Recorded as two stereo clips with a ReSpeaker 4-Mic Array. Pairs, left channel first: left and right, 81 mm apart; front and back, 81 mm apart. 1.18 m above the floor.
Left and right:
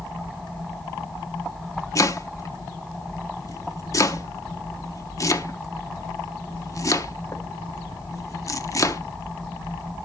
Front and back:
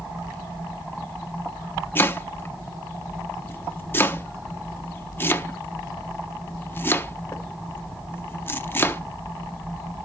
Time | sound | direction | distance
1.9 | chopping | 55° left | 0.9 m